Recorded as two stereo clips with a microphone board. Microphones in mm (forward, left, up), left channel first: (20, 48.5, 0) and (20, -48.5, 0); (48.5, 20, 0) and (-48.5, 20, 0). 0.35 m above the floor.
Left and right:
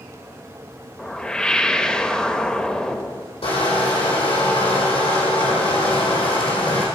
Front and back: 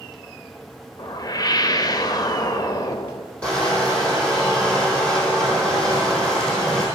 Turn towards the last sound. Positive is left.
turn(degrees=80)